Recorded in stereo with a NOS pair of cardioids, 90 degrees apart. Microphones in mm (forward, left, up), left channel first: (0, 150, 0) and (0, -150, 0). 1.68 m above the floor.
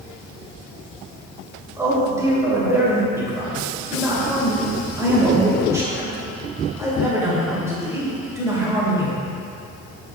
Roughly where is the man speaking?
Ahead.